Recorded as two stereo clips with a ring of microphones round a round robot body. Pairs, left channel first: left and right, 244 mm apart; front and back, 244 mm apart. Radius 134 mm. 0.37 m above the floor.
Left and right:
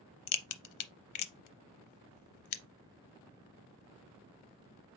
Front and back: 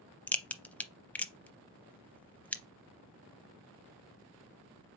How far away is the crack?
About 0.6 m.